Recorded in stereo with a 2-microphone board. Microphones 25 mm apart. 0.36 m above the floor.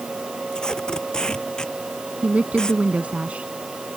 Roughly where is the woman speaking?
Right.